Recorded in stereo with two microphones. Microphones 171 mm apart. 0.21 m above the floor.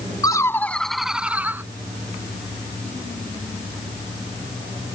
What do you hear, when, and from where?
0.2 s laughter: 25° left (ahead or behind); by 1.6 s 15° right (ahead or behind)